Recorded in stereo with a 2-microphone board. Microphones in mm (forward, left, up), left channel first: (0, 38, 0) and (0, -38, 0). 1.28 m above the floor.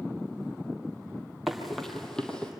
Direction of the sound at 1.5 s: Centre (ahead or behind).